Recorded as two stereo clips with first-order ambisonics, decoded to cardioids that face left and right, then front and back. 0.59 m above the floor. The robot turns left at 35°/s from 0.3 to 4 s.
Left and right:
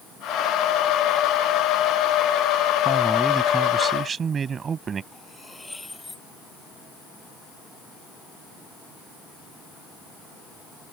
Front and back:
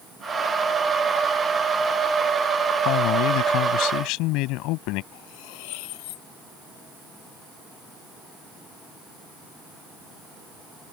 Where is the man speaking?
15° left; by 5.0 s 25° right.